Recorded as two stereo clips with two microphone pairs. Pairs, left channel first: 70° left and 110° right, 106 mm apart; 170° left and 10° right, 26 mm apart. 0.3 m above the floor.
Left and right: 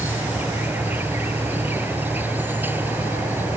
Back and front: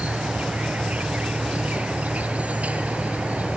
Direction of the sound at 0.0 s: 35° right.